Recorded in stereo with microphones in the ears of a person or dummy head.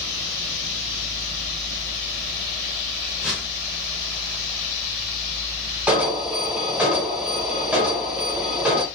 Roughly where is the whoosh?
Centre.